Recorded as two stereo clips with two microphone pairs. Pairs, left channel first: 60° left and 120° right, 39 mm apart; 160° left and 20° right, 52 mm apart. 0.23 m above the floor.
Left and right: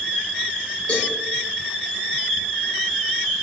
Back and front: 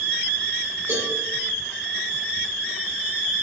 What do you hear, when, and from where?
0.9 s a cowbell: straight ahead, 5.5 m